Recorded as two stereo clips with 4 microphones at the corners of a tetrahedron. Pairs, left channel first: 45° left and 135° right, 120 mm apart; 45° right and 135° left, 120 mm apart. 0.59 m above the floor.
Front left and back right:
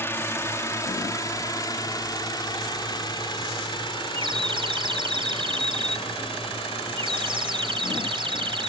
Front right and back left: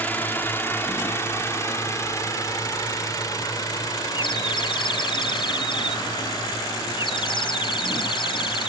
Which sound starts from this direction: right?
A bird, at 4.2 s.